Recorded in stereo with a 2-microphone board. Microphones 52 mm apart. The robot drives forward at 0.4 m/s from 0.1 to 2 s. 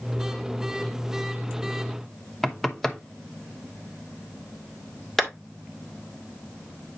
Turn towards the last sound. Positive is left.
turn(degrees=5)  # may be behind; listen again after turning